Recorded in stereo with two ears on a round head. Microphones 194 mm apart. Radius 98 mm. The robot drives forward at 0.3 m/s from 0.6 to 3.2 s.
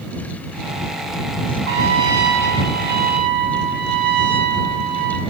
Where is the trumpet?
60° right (ahead or behind), 1.2 m; by 5.2 s 45° right (ahead or behind), 1.3 m.